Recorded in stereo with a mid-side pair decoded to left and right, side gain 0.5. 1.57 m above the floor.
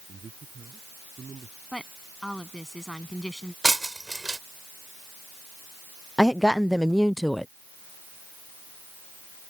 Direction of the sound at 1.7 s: Straight ahead.